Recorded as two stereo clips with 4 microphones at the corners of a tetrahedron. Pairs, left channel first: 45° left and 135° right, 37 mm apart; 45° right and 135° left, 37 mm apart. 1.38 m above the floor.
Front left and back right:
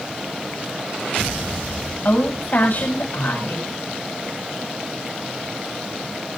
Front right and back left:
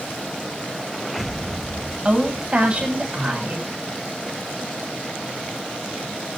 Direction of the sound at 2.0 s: 75° left.